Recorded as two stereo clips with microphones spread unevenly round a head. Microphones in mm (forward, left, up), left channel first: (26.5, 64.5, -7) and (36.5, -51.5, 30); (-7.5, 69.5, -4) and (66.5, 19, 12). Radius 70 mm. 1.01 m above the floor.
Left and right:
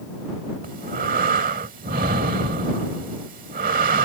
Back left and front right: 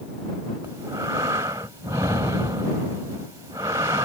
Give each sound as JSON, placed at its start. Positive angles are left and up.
{"t": 0.6, "sound": "breathing", "azimuth_deg": -100}